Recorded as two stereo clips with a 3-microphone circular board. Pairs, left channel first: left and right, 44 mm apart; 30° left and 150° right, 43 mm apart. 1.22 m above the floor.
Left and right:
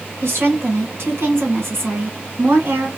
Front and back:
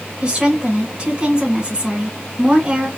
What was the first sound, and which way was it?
A woman speaking, 85° right.